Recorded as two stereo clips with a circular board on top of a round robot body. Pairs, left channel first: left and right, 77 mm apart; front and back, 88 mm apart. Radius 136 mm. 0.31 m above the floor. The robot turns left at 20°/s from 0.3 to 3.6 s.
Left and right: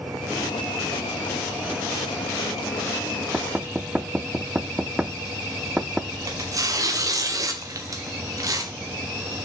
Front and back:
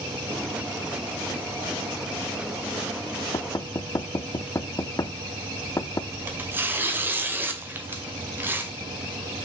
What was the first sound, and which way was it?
Knocking, 20° right.